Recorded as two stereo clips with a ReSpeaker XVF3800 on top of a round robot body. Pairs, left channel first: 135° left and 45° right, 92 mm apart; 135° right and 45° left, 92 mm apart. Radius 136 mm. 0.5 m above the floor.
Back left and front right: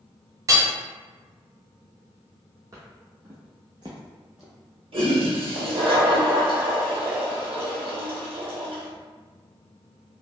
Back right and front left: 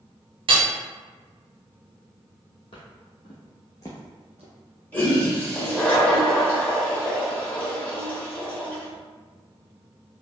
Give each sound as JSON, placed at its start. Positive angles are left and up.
{"t": 0.5, "sound": "hammering", "azimuth_deg": 15, "distance_m": 0.5}
{"t": 2.7, "sound": "footsteps", "azimuth_deg": -100, "distance_m": 1.2}
{"t": 4.9, "sound": "a toilet flushing", "azimuth_deg": -60, "distance_m": 1.5}